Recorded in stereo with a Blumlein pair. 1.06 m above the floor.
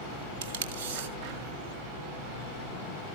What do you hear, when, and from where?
0.4 s tape being pulled: 55° right, 1.4 m